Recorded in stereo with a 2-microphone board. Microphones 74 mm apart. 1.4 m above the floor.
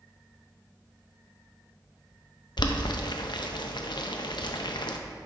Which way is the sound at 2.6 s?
80° left.